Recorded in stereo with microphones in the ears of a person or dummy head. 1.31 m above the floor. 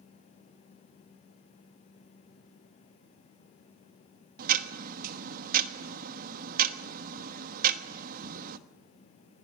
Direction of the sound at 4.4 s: 55° right (ahead or behind).